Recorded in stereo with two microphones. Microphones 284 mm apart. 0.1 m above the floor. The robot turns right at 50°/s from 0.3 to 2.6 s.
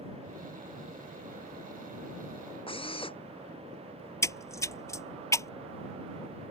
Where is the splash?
10° left (ahead or behind).